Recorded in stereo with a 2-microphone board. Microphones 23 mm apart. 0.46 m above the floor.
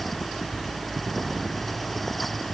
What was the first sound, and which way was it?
Only background noise.